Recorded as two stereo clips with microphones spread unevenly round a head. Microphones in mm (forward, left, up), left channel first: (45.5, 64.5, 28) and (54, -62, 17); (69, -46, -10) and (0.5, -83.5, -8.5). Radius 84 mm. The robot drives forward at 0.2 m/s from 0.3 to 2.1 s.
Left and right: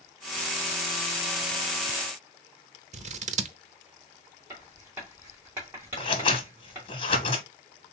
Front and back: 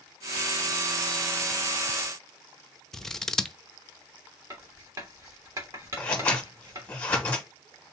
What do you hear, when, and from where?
2.9 s scissors: 55° right, 0.7 m
4.5 s writing: 165° right, 1.4 m
6.0 s scissors: 95° left, 0.9 m